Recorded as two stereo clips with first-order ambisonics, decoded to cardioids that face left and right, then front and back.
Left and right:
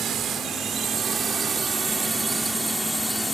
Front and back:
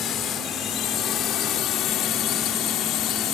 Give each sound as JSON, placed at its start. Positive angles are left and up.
{"t": 0.0, "sound": "a drone", "azimuth_deg": -40}